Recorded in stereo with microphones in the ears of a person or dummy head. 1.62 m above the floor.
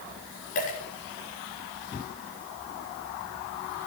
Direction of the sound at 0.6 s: 40° left (ahead or behind).